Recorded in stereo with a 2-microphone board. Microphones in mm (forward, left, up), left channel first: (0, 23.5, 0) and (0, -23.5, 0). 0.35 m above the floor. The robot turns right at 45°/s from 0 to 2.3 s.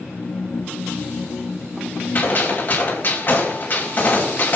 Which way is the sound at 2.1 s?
35° left (ahead or behind).